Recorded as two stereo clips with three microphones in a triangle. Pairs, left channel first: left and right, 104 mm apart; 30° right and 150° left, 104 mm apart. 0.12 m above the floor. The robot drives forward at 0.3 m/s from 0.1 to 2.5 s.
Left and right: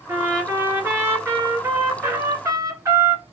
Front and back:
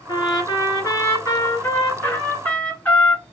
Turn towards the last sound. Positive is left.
turn(degrees=-90)